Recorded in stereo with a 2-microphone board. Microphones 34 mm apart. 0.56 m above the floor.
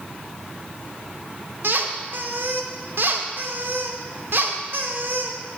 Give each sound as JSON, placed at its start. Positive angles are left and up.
{"t": 1.6, "sound": "a squeak", "side_deg": -65, "distance_m": 0.7}